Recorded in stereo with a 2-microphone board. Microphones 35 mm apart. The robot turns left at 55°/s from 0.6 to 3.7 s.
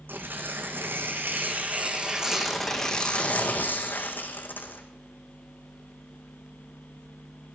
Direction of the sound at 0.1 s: 70° right.